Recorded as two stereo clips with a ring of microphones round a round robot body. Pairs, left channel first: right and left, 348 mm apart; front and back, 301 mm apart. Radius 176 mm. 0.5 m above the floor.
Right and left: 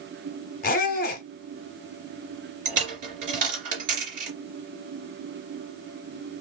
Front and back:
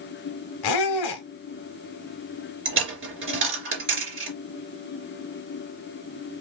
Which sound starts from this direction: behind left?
A dropped coin, at 2.6 s.